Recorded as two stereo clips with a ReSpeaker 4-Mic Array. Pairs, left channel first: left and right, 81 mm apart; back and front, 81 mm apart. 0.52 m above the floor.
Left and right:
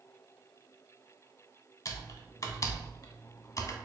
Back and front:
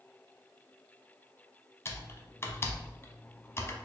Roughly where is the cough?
I don't hear a cough.